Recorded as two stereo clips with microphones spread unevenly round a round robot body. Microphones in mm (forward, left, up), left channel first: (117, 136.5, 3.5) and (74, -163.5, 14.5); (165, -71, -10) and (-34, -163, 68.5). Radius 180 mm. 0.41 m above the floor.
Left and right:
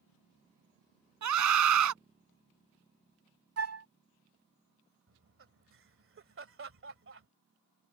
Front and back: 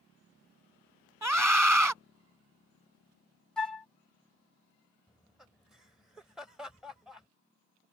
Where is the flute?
55° right.